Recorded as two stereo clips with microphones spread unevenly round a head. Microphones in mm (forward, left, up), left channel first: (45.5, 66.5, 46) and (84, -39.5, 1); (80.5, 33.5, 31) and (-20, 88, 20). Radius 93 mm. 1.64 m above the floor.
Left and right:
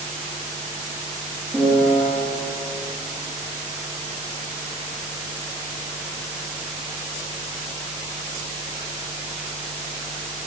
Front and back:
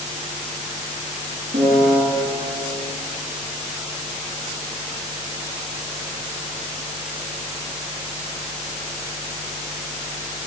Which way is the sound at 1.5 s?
165° right.